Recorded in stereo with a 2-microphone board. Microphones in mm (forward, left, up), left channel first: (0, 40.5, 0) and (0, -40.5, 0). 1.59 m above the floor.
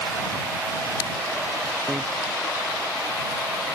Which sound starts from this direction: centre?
A bicycle bell, at 1.9 s.